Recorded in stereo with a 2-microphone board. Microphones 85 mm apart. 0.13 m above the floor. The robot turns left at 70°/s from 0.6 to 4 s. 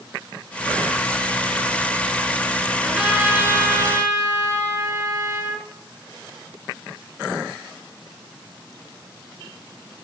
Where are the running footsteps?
No running footsteps in this recording.